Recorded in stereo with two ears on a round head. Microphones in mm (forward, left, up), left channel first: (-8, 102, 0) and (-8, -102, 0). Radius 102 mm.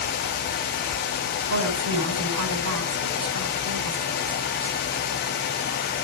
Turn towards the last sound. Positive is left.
turn(degrees=-75)  # may be behind; listen again after turning